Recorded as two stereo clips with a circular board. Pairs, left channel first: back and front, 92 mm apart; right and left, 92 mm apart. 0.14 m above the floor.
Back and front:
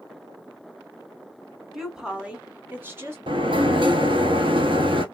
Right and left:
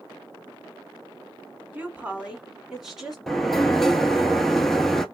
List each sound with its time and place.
1.7 s a woman speaking: 85° left, 1.3 m; by 3.2 s straight ahead, 1.4 m
3.3 s a sliding door: 5° right, 0.6 m